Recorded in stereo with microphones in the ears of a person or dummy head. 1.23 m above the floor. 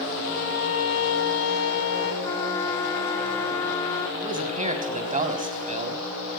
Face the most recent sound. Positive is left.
turn(degrees=-35)  # may be behind; listen again after turning